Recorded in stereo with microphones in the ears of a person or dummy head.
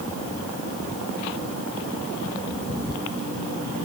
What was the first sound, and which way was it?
Only background noise.